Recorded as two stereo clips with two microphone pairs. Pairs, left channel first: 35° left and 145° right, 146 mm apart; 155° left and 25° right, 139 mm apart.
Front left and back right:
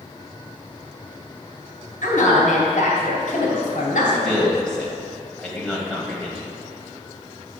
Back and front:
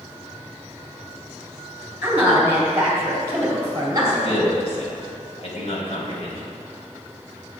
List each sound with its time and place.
2.0 s a woman speaking: 50° left, 3.5 m; by 4.5 s 30° left, 2.5 m
4.0 s a man speaking: 120° left, 2.5 m